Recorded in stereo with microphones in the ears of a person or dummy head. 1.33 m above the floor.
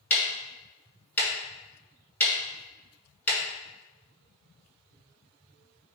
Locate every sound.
0.1 s ticking: 15° left (ahead or behind), 1.5 m